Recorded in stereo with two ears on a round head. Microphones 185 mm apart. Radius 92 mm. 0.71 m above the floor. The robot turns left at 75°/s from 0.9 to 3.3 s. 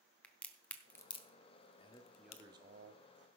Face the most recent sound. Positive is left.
turn(degrees=-80)